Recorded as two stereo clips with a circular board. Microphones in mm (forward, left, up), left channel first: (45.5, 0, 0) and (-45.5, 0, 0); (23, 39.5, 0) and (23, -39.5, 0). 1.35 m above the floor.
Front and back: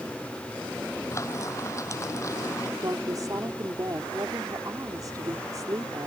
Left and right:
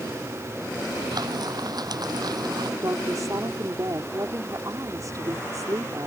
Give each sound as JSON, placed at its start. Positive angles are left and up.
{"t": 1.1, "sound": "frying", "azimuth_deg": -55}
{"t": 2.8, "sound": "a woman speaking", "azimuth_deg": -135}